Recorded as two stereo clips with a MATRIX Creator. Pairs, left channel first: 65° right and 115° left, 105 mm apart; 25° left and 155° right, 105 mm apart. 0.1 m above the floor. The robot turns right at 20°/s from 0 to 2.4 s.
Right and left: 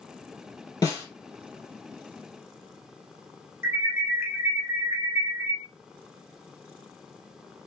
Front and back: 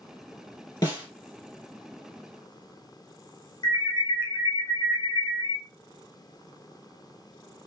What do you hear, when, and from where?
0.8 s a snare drum: 20° right, 3 m; by 1.1 s 15° right, 3 m
3.6 s an alarm: 50° left, 1.8 m